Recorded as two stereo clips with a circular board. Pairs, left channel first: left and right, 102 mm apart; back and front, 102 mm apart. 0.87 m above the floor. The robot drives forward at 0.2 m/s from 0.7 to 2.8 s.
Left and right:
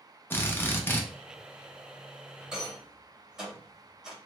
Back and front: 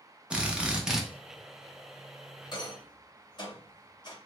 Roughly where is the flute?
No flute in this recording.